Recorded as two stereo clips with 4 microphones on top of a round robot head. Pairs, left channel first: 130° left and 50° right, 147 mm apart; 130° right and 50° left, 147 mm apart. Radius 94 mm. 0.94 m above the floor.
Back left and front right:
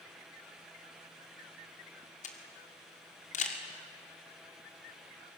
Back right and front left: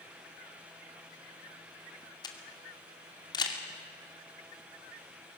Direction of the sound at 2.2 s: 170° left.